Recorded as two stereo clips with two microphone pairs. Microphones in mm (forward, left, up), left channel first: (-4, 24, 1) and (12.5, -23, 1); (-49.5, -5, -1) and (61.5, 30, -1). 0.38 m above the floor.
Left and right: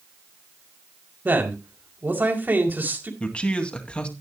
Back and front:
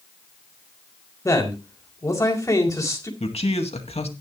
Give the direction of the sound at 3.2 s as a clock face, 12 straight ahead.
6 o'clock.